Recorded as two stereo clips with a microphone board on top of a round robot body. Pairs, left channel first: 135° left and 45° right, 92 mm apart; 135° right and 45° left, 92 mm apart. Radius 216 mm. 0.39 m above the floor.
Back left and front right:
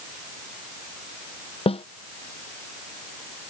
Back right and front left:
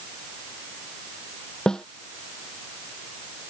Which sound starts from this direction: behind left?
A snare drum, at 1.7 s.